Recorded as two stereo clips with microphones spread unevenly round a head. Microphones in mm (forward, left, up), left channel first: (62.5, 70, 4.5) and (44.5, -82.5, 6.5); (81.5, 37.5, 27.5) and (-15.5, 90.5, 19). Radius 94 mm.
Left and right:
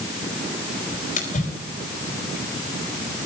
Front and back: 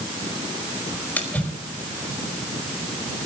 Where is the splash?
45° left, 4.5 m.